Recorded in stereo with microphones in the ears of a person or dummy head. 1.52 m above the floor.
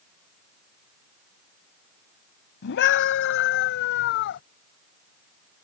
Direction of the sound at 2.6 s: 70° left (ahead or behind).